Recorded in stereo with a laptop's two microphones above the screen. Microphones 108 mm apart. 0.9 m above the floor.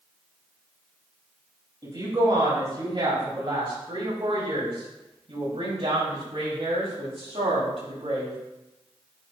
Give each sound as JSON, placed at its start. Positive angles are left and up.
{"t": 1.8, "sound": "a woman speaking", "side_deg": -45, "distance_m": 4.5}